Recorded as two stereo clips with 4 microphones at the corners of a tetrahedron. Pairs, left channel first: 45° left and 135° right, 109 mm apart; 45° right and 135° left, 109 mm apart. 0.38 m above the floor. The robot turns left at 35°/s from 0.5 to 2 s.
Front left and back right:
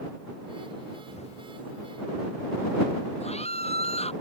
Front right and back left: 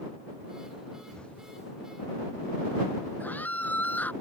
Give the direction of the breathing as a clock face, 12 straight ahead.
No breathing in this recording.